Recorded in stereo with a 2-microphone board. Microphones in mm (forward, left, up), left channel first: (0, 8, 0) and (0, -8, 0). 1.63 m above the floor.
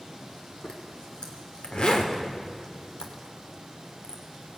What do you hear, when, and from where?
0.6 s a zipper: 75° left (ahead or behind), 3 m